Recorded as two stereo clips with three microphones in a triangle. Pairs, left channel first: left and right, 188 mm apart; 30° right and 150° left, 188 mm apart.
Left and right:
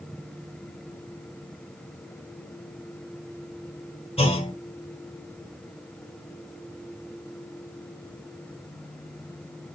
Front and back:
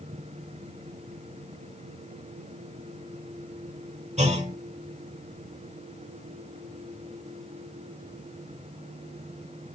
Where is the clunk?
125° left, 1.3 m.